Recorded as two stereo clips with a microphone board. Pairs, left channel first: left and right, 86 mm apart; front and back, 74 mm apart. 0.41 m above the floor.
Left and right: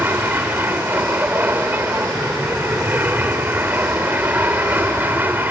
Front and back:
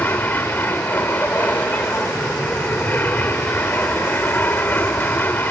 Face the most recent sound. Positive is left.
turn(degrees=-40)